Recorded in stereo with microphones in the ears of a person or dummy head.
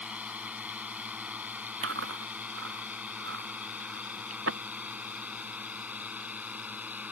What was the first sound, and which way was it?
A drone, 15° right (ahead or behind).